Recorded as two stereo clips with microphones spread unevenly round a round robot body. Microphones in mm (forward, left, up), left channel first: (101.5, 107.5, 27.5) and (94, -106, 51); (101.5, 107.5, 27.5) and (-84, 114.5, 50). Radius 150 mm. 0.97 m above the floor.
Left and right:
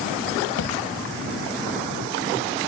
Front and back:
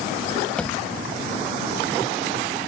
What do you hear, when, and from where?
0.6 s a thud: 85° left